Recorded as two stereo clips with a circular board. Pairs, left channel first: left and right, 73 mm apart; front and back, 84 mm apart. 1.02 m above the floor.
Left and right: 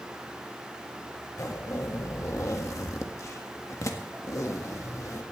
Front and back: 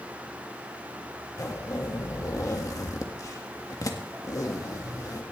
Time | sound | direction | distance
1.4 | a zipper | 45° left | 1.6 m